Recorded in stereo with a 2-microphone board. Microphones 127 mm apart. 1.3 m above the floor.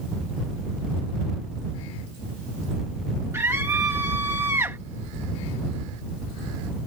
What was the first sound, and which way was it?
A scream, 20° right (ahead or behind).